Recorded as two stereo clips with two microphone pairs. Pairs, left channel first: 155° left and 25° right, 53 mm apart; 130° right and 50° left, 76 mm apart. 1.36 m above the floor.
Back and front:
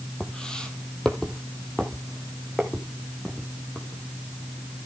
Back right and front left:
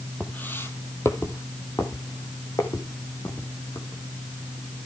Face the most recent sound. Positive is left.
turn(degrees=-120)